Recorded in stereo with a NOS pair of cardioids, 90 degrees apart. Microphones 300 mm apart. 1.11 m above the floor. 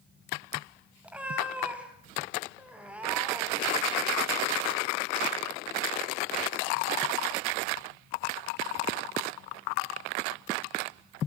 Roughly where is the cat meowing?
Ahead.